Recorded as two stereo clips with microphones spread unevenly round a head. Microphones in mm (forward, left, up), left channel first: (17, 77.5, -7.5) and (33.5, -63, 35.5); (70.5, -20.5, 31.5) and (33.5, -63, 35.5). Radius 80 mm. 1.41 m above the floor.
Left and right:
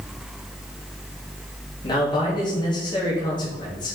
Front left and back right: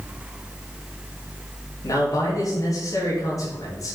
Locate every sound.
1.8 s a man speaking: 40° left, 3 m